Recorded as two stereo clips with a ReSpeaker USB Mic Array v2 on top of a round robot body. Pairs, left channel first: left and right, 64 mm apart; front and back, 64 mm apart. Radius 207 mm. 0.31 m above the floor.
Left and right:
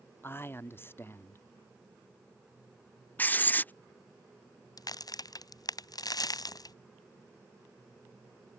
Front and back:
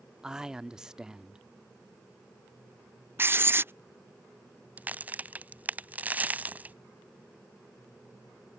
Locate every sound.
0.2 s a man speaking: 105° left
3.2 s writing: 140° left
4.8 s a crack: 115° left